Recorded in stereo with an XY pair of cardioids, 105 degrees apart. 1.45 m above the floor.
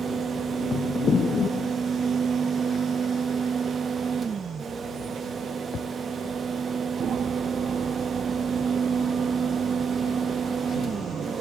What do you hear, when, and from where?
0.0 s a fan: 40° right, 1.5 m